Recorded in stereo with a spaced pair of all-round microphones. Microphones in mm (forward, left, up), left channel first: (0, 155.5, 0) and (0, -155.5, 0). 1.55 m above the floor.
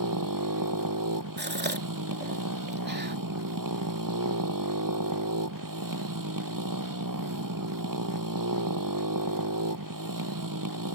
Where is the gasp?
30° right (ahead or behind).